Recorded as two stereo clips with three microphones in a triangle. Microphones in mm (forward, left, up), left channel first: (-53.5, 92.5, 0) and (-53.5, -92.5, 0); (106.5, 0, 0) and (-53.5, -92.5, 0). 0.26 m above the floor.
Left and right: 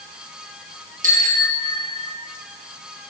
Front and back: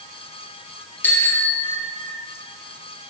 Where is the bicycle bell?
50° right, 3.5 m.